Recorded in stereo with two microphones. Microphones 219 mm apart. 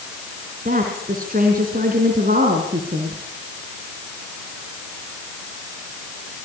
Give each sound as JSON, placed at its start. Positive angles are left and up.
{"t": 0.7, "sound": "a woman speaking", "side_deg": -45, "distance_m": 4.0}